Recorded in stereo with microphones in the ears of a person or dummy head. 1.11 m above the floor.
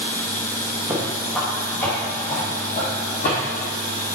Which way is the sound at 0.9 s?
10° right (ahead or behind).